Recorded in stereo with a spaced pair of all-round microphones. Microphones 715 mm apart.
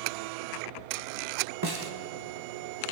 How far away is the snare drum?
About 1.4 m.